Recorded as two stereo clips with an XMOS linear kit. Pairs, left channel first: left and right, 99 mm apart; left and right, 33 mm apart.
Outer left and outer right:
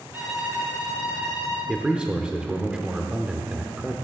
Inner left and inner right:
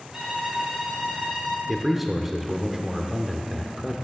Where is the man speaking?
10° right (ahead or behind), 0.7 m.